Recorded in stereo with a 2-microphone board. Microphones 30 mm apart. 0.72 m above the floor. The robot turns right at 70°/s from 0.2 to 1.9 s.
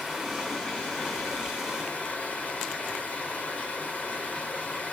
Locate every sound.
0.0 s running water: straight ahead, 4.5 m; by 5.0 s 120° left, 4.5 m